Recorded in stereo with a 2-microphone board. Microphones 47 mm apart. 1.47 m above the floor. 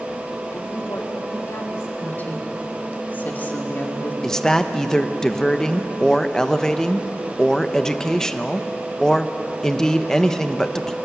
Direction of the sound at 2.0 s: 40° left (ahead or behind).